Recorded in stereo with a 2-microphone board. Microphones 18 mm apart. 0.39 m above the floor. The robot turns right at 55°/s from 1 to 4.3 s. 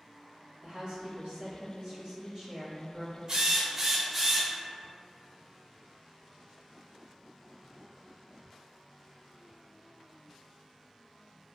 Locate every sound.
0.6 s a woman speaking: 105° right, 1.7 m; by 3.2 s 15° left, 1.7 m
3.3 s a drill: 50° right, 0.8 m; by 4.5 s 5° left, 0.8 m